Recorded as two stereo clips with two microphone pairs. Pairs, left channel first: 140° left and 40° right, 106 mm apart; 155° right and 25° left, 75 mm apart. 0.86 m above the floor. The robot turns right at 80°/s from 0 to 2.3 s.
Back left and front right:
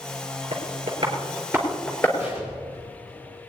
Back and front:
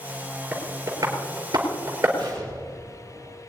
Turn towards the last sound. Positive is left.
turn(degrees=40)